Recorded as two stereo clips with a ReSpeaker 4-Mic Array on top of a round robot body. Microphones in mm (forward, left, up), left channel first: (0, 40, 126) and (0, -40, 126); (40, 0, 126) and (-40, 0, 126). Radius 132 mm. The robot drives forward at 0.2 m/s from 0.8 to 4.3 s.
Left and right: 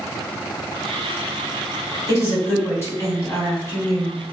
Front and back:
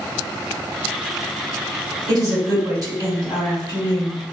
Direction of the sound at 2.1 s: 140° left.